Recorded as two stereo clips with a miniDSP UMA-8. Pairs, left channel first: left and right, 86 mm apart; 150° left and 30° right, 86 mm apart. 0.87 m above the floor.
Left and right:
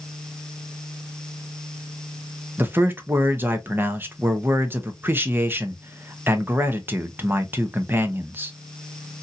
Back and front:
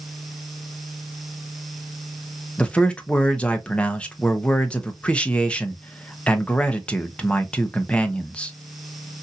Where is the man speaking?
140° right, 0.7 m.